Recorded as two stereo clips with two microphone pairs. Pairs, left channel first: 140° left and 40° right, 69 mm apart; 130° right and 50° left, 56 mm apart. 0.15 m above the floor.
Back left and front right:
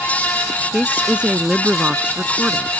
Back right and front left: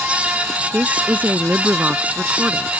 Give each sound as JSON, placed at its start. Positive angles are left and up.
{"t": 0.7, "sound": "a woman speaking", "azimuth_deg": 20}